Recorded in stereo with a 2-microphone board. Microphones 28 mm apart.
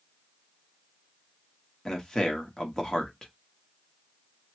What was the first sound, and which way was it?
A man speaking, 15° left (ahead or behind).